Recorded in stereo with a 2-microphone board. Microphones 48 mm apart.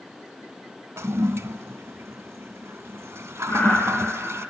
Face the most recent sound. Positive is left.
turn(degrees=45)  # may be behind; listen again after turning